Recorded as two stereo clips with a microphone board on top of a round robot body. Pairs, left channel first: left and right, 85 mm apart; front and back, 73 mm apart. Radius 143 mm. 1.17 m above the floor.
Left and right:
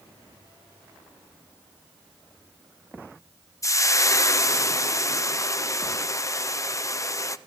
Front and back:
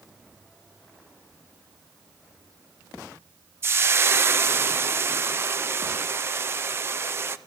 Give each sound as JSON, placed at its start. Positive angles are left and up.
{"t": 3.6, "sound": "frying", "azimuth_deg": 135, "distance_m": 0.5}